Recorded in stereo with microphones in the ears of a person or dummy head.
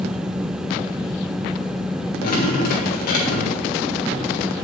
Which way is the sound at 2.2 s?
45° left (ahead or behind).